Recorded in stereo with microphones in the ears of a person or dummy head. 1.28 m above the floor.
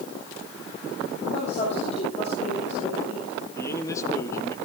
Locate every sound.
1.3 s a woman speaking: 35° left (ahead or behind), 7.5 m
3.6 s a man speaking: 15° left (ahead or behind), 2 m